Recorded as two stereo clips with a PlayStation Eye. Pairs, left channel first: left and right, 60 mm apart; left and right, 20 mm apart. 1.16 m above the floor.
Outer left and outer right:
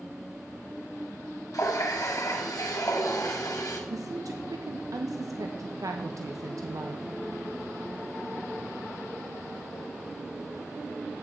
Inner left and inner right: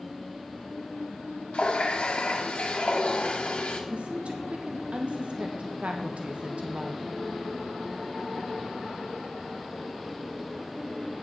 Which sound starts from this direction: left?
A running tap, at 1.5 s.